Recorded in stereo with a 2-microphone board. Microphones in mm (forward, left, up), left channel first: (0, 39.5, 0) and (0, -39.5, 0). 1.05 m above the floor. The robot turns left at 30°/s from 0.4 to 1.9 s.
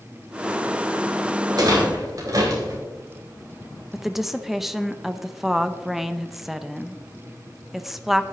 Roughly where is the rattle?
Right.